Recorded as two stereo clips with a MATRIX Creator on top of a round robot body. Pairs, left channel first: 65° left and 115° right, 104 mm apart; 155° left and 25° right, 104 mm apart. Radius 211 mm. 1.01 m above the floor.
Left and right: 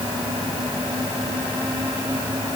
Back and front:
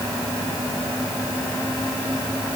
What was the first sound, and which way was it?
Only background noise.